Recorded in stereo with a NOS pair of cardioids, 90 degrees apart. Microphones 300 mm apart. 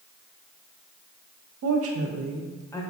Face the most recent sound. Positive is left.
turn(degrees=15)